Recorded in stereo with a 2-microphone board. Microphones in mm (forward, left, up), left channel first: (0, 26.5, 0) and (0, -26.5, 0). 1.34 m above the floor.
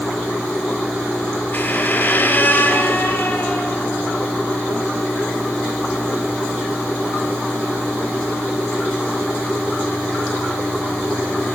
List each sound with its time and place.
1.5 s a squeak: 40° left (ahead or behind), 3.5 m